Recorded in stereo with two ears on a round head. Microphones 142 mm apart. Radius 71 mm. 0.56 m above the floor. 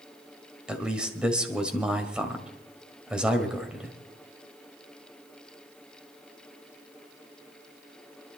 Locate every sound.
0.7 s a man speaking: 5° right (ahead or behind), 2 m